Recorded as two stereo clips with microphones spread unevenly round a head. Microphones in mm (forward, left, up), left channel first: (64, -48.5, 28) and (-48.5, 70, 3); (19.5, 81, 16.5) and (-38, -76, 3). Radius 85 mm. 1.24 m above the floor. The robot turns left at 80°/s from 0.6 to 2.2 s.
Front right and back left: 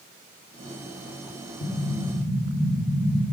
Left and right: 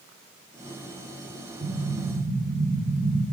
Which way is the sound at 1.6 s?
55° right.